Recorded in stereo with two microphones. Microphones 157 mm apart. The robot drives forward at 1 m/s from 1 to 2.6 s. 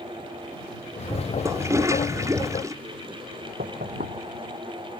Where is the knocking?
75° right (ahead or behind).